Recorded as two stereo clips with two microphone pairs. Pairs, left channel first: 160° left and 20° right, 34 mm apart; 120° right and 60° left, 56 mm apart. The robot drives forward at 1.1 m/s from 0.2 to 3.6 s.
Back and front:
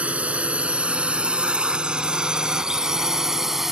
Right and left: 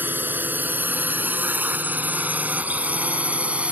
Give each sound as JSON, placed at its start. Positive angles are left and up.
{"t": 0.0, "sound": "a drone", "azimuth_deg": 15}